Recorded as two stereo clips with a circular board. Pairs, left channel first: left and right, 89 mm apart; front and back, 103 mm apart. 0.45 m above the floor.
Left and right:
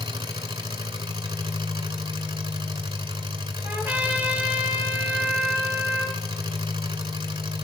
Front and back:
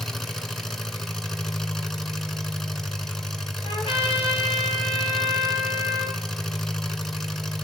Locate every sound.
0.0 s an engine running: 85° right, 1.3 m
3.6 s a trumpet: 25° right, 3 m